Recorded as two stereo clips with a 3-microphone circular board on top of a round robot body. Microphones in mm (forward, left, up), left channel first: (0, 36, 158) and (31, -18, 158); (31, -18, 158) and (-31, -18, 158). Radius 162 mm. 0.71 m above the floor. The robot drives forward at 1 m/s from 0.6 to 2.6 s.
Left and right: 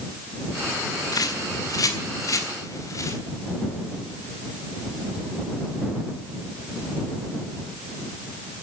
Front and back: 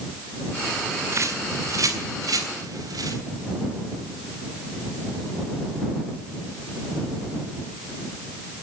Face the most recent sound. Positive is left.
turn(degrees=155)